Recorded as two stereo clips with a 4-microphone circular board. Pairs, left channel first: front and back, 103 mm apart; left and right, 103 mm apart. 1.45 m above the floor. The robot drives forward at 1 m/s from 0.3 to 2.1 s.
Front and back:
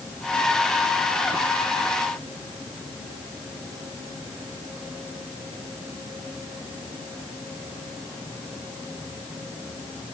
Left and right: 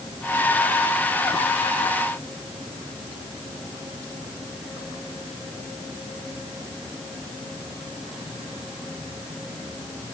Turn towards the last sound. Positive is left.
No sound to turn to.